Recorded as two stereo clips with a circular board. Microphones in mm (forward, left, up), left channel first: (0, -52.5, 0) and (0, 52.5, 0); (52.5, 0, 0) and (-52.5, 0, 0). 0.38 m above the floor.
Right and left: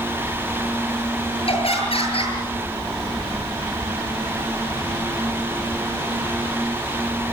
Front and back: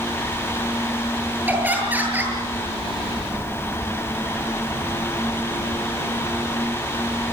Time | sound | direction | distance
1.5 | laughter | 110° right | 8.5 m